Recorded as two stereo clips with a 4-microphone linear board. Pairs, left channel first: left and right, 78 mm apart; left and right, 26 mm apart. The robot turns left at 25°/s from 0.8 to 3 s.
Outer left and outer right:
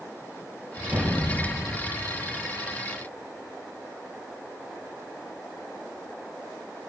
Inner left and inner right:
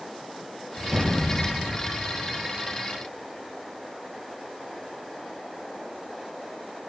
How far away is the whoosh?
About 3 m.